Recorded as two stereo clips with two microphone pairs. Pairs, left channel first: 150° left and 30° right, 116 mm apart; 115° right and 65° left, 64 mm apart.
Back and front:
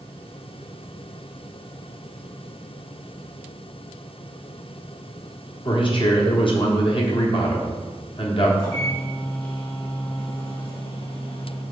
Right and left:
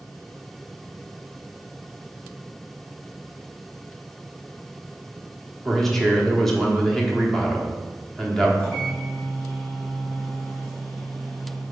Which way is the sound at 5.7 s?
160° left.